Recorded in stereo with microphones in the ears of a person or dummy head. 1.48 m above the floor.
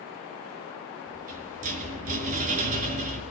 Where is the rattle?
45° right (ahead or behind), 5.5 m.